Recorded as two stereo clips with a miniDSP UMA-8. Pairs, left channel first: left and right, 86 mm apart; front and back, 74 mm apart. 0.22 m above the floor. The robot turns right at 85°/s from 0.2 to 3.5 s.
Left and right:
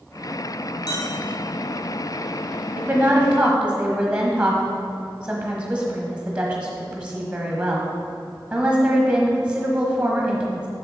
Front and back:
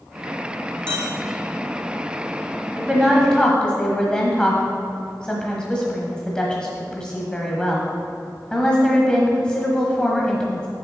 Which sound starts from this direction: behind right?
A woman speaking, at 2.8 s.